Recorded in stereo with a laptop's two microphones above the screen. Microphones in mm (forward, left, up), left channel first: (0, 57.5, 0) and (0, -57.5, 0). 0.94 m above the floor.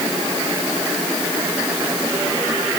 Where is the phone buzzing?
I don't hear a phone buzzing.